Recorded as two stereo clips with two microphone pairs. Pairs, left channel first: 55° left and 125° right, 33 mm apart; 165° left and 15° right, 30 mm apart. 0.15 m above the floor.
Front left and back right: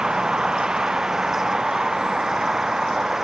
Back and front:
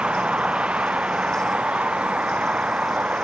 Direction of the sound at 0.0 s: 55° right.